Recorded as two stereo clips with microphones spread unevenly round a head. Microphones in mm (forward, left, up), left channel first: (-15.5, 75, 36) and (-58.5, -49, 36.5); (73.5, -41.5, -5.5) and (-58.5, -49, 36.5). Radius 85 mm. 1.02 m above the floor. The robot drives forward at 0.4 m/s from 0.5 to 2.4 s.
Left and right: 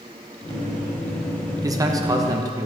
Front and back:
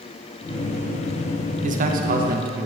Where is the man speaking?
160° right, 0.6 m; by 2.7 s 170° right, 0.9 m.